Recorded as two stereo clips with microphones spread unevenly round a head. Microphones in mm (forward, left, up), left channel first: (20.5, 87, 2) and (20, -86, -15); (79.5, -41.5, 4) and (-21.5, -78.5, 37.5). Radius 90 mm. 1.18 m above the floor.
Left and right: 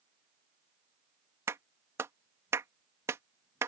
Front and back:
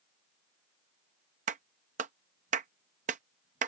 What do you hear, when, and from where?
1.5 s a clap: 165° right